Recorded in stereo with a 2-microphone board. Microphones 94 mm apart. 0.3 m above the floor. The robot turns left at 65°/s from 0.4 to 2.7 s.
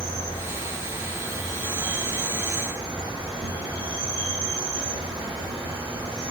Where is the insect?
110° left, 2.0 m; by 6.3 s 40° right, 2.0 m.